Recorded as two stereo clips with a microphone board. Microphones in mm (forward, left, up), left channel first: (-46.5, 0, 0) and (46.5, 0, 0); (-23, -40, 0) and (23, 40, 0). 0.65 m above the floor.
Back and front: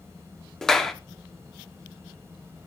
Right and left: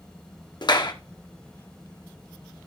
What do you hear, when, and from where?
0.6 s a clap: 95° right, 0.9 m